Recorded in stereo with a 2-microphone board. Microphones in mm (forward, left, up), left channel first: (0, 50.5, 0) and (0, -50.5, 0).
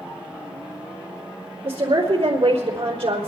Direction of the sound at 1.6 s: 75° right (ahead or behind).